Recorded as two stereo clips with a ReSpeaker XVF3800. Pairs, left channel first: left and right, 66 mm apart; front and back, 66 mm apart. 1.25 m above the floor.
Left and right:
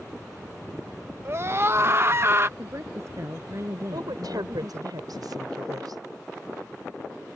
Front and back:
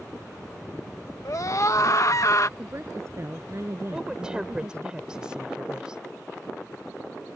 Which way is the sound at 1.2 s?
40° right.